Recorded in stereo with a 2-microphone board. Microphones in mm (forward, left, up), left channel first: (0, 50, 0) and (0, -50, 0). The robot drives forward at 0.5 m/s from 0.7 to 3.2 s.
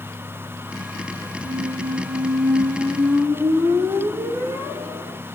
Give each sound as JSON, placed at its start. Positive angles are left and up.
{"t": 1.4, "sound": "a squeak", "side_deg": -45, "distance_m": 0.5}